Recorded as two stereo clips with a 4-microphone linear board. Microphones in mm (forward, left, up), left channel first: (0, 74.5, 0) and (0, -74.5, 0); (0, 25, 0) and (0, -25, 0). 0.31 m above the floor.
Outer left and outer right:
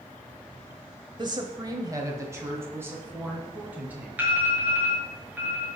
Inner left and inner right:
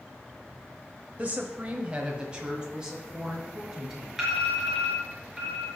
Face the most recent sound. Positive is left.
turn(degrees=-10)  # may be behind; listen again after turning